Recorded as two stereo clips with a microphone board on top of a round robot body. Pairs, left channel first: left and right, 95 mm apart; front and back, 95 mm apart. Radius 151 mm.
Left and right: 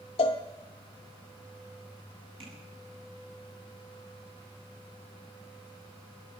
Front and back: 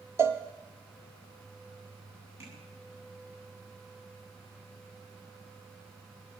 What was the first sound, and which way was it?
A cowbell, 115° left.